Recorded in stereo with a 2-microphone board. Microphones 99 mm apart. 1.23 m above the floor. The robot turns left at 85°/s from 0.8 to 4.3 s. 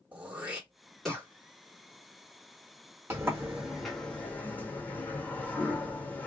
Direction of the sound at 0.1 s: 15° right (ahead or behind).